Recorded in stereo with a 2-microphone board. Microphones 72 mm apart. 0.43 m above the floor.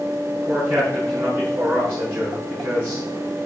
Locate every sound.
0.5 s a man speaking: 25° right (ahead or behind), 6 m